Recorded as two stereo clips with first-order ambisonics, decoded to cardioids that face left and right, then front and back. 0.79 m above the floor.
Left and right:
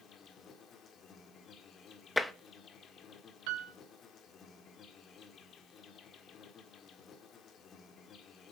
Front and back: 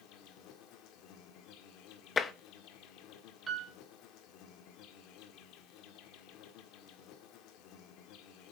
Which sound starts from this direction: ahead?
Tapping, at 2.2 s.